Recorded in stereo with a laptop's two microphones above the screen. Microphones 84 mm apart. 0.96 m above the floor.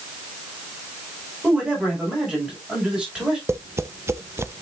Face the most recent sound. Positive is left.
turn(degrees=-30)  # may be behind; listen again after turning